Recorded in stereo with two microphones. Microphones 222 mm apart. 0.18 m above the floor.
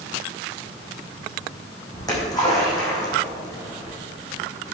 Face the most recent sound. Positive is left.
turn(degrees=15)  # may be behind; listen again after turning